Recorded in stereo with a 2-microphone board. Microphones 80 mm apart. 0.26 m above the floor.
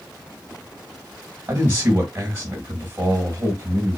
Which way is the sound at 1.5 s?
30° right (ahead or behind).